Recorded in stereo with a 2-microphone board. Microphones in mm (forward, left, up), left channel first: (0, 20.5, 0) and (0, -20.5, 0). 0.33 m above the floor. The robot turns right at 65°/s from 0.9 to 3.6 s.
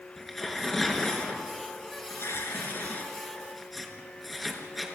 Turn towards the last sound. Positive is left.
turn(degrees=0)  # may be behind; listen again after turning